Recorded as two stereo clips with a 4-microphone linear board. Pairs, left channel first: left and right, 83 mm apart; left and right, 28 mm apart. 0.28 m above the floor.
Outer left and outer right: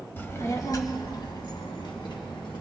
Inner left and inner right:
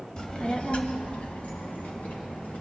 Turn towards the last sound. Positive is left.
turn(degrees=70)  # may be behind; listen again after turning